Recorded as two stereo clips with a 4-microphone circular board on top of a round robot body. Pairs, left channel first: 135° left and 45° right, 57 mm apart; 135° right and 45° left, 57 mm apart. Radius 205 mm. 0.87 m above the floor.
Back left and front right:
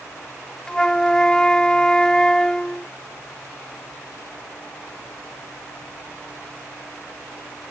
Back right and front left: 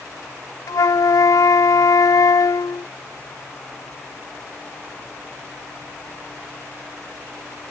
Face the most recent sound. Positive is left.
turn(degrees=-145)